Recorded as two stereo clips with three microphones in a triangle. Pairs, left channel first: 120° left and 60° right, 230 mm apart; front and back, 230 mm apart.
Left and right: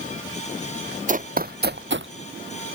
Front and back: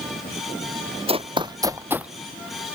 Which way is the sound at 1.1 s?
115° right.